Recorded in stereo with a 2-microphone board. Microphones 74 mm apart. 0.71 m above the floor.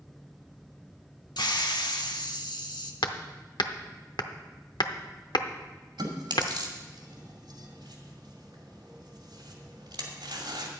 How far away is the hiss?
About 1.0 m.